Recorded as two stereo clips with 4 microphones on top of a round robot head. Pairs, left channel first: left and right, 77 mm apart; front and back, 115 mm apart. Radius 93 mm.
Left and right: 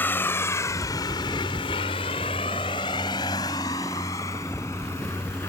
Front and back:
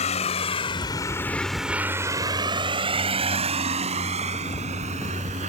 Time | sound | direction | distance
0.0 | a vehicle | 25° left | ?